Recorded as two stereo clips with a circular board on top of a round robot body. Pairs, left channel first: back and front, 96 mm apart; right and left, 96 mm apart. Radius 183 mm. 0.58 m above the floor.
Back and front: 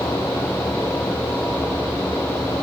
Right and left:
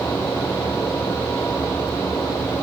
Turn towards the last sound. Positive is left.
No sound to turn to.